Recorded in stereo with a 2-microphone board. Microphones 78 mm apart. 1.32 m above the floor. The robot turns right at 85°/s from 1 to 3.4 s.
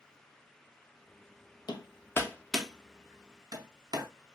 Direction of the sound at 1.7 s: 65° left (ahead or behind).